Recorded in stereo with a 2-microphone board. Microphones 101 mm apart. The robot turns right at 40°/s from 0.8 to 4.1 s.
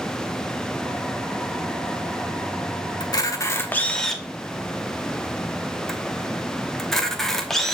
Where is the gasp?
No gasp in this recording.